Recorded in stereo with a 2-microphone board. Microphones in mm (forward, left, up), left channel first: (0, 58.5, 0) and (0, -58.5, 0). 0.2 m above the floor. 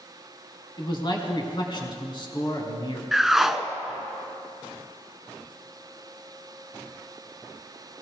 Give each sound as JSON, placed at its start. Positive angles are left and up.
{"t": 0.8, "sound": "a man speaking", "side_deg": 40, "distance_m": 2.0}
{"t": 3.1, "sound": "a whoosh", "side_deg": -5, "distance_m": 0.6}